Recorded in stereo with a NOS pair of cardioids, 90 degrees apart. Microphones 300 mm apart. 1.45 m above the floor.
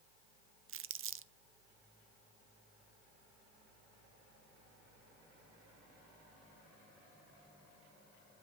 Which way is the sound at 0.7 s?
45° right.